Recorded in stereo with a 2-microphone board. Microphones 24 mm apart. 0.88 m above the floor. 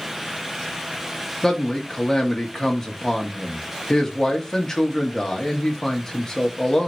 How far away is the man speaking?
About 1.4 m.